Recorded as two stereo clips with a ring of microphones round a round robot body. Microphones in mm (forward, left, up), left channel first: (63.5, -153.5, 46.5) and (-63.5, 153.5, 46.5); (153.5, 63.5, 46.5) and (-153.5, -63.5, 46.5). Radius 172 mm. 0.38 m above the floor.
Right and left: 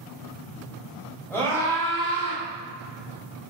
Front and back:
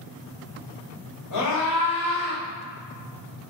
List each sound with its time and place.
1.3 s a scream: 15° left, 1.8 m; by 2.4 s 10° right, 1.3 m